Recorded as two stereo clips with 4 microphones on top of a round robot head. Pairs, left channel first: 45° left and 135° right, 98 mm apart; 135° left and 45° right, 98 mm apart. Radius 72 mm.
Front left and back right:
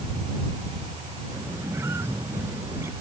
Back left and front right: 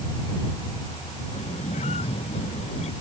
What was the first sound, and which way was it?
A squeak, 155° left.